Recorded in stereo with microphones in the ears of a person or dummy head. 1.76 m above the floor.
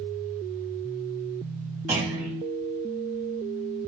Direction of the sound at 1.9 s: 15° right (ahead or behind).